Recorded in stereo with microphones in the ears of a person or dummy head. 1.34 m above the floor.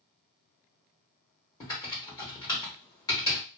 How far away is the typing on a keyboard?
About 1.2 m.